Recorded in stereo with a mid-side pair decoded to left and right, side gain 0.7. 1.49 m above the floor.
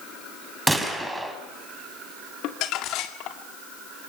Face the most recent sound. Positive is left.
turn(degrees=60)